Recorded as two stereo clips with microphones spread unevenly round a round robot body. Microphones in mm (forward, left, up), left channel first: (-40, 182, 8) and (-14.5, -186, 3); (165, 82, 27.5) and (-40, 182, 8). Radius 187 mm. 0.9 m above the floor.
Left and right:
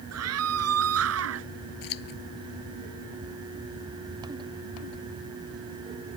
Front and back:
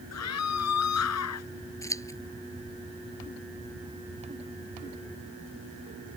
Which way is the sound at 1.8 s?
50° left.